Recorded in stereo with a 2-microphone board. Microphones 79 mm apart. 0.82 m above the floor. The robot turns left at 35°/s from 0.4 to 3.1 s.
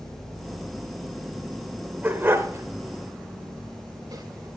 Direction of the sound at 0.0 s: 75° left.